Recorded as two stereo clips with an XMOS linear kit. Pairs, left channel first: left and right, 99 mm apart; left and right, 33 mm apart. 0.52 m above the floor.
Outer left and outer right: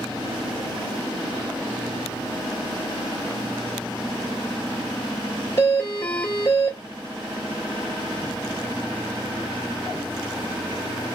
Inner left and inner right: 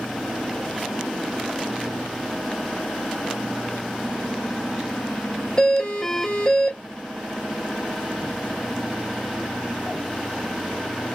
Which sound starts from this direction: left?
A doorbell, at 5.6 s.